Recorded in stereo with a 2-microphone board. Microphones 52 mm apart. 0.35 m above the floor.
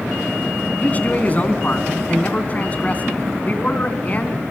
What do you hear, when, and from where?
0.8 s a man speaking: 30° left (ahead or behind), 3 m